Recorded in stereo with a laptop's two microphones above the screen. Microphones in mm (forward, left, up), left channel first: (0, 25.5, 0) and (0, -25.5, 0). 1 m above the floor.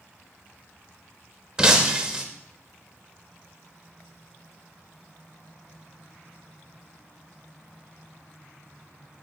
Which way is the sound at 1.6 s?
15° right (ahead or behind).